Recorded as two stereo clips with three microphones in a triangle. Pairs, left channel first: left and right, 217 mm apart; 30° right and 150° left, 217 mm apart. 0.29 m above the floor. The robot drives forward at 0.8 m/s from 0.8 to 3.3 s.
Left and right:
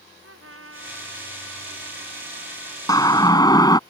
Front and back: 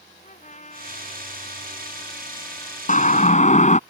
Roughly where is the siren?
Ahead.